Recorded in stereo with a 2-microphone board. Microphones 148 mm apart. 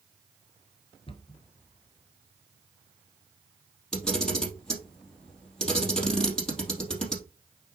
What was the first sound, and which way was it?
A cupboard door, 35° left (ahead or behind).